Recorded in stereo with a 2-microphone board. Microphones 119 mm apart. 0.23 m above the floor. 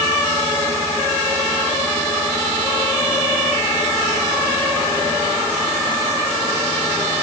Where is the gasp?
I don't hear a gasp.